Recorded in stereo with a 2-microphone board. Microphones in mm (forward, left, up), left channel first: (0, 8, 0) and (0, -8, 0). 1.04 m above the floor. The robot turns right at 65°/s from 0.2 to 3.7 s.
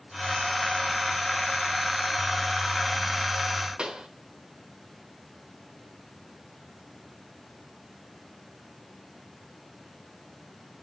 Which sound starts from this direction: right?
A pop, at 3.8 s.